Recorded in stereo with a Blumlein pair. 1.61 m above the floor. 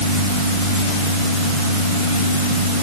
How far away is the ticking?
No ticking in this recording.